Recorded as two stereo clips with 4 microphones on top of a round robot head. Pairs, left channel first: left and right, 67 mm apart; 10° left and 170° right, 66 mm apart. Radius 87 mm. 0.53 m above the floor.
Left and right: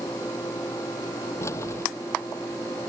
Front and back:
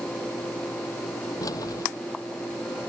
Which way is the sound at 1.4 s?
40° left.